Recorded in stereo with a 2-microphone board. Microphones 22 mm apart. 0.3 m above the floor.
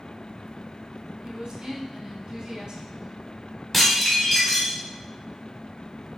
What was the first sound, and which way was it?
A woman speaking, 45° right (ahead or behind).